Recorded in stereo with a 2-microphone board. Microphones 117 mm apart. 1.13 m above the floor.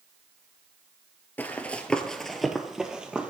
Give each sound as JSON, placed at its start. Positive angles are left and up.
{"t": 1.4, "sound": "running footsteps", "side_deg": 15, "distance_m": 1.1}